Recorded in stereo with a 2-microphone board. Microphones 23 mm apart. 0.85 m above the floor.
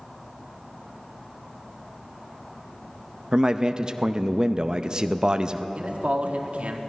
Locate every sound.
3.3 s a man speaking: 30° right (ahead or behind), 0.5 m
5.8 s a man speaking: 70° right (ahead or behind), 1.4 m